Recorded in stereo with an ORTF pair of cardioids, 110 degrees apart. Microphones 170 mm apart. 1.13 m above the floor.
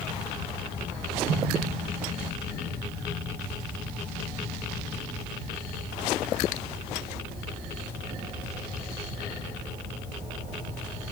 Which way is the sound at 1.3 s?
60° right.